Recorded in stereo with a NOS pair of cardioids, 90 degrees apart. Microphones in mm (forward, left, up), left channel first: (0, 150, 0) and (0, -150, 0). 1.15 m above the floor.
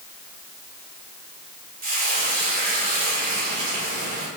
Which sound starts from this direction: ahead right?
Frying, at 1.8 s.